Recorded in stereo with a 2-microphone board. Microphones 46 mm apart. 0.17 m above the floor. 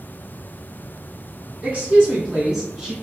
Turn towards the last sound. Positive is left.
turn(degrees=-5)  # may be behind; listen again after turning